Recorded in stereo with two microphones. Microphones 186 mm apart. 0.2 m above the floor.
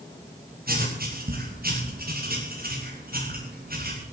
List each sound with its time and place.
0.7 s writing: 60° right (ahead or behind), 9 m